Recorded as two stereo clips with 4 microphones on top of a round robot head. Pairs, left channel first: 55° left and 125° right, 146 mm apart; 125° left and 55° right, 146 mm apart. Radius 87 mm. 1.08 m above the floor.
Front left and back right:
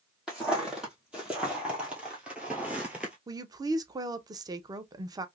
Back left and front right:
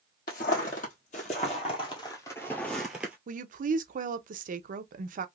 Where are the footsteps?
150° left, 1.8 m; by 3.2 s 75° right, 1.0 m.